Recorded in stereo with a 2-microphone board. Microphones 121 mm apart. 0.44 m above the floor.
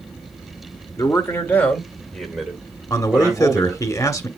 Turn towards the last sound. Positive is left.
turn(degrees=30)  # may be behind; listen again after turning